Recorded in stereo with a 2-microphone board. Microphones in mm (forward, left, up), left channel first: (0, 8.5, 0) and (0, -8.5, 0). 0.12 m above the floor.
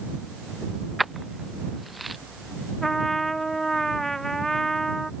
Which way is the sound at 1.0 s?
Centre (ahead or behind).